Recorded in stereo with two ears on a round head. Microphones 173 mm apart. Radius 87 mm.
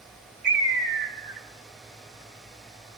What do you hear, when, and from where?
0.4 s a bird: 55° right (ahead or behind), 3 m